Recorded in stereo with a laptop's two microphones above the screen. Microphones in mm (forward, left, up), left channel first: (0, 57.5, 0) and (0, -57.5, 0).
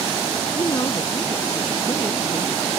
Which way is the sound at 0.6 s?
30° left (ahead or behind).